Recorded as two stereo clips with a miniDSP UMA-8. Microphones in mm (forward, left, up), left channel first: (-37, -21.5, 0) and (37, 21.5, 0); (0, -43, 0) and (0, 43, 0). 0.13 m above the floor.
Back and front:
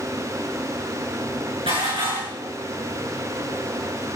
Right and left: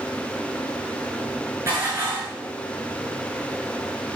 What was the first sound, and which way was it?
Dishes clattering, 30° left.